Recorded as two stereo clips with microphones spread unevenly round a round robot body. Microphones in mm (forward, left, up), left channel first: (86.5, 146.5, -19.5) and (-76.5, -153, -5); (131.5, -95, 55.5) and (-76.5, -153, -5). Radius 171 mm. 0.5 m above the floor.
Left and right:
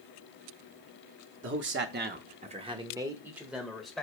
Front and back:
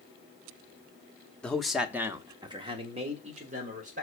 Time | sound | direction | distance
1.4 | a man speaking | 90° right | 0.8 m